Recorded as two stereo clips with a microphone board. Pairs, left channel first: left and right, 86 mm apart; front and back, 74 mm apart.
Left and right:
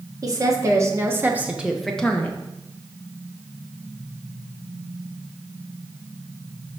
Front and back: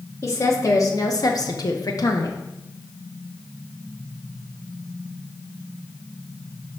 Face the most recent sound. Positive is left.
turn(degrees=30)